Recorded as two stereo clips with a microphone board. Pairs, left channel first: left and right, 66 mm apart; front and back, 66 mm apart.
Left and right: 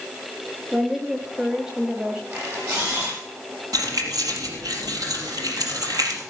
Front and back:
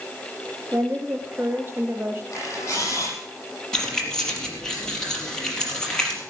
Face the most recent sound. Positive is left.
turn(degrees=-80)